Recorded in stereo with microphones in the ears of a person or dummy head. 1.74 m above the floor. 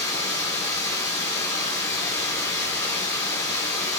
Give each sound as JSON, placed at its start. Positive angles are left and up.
{"t": 0.0, "sound": "running water", "side_deg": 10, "distance_m": 1.4}